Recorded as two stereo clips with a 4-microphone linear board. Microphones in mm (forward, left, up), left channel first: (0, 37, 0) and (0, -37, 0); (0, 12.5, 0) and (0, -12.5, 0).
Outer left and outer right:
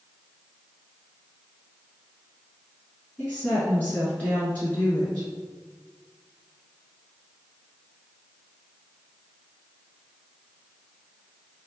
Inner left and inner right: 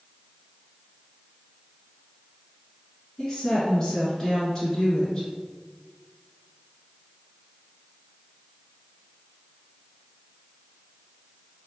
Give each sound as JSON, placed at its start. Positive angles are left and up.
{"t": 3.2, "sound": "a woman speaking", "side_deg": 20, "distance_m": 1.4}